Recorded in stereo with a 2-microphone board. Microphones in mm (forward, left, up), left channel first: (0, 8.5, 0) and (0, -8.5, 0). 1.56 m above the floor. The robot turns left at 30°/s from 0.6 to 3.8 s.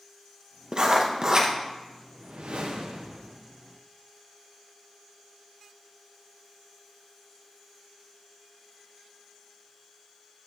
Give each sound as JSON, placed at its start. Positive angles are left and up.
{"t": 0.7, "sound": "writing", "side_deg": -45, "distance_m": 0.9}
{"t": 2.1, "sound": "a whoosh", "azimuth_deg": -75, "distance_m": 0.9}